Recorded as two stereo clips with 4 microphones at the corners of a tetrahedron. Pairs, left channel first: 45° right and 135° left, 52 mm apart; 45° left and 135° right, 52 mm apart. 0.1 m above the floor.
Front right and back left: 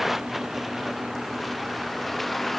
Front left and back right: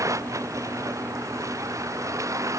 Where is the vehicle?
140° right; by 2.6 s 130° right.